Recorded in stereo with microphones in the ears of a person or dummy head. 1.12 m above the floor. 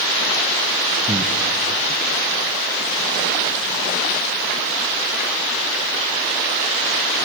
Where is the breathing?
15° right (ahead or behind), 0.9 m.